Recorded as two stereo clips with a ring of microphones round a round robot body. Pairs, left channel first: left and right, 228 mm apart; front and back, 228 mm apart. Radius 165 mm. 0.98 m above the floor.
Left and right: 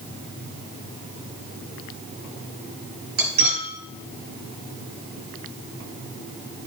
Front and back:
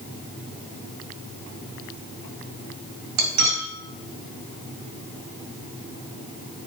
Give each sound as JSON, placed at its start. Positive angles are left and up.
{"t": 3.2, "sound": "cutlery clinking", "azimuth_deg": -155, "distance_m": 1.5}